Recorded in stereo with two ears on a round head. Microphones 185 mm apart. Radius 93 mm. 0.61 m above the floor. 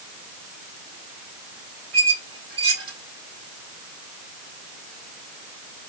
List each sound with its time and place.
1.9 s a squeak: 25° right (ahead or behind), 3 m